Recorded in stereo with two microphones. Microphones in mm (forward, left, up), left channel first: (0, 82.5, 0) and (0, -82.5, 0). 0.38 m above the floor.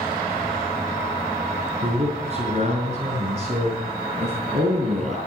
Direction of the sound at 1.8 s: 40° right (ahead or behind).